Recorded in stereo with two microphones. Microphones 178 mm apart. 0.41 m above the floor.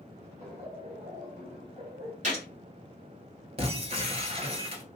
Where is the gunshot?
45° right (ahead or behind), 1.4 m.